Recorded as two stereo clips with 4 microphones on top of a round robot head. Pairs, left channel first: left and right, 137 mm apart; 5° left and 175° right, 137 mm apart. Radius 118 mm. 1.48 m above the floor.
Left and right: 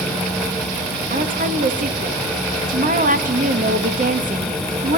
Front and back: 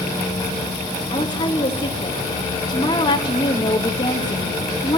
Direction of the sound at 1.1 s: 60° right.